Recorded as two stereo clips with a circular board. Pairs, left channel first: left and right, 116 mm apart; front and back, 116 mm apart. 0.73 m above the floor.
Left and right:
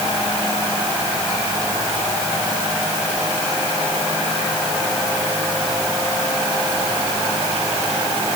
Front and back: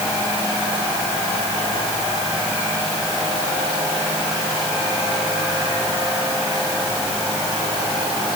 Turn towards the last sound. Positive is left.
No sound to turn to.